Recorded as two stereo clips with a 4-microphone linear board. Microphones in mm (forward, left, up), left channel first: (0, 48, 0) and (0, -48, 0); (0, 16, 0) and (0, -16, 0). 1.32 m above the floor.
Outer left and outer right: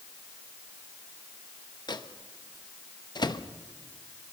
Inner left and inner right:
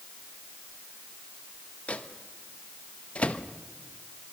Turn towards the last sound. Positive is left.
turn(degrees=45)  # may be behind; listen again after turning